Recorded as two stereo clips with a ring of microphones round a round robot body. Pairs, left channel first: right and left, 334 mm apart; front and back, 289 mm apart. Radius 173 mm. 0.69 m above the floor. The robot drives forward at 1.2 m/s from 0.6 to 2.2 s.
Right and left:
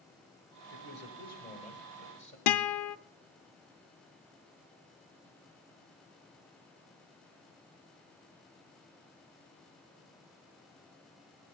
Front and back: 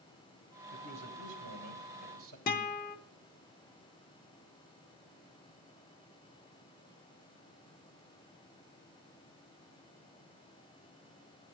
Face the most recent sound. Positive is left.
turn(degrees=-65)